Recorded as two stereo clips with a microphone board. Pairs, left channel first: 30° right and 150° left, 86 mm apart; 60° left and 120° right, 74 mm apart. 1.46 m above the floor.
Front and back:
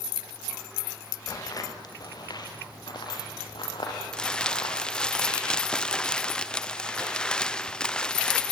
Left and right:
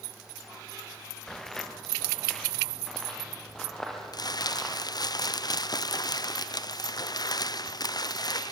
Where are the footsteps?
20° right, 1.9 m; by 4.8 s 25° right, 4 m.